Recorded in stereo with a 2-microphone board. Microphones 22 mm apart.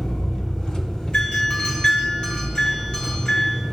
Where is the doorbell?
50° left (ahead or behind), 2.5 m.